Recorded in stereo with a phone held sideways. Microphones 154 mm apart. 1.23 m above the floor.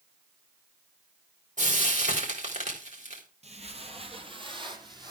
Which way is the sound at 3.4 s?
50° right (ahead or behind).